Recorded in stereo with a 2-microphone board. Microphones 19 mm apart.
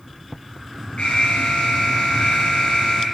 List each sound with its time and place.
1.0 s an alarm: 70° left (ahead or behind), 5 m